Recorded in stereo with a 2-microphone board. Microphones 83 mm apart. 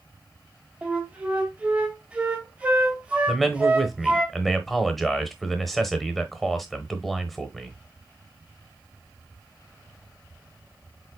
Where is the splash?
No splash in this recording.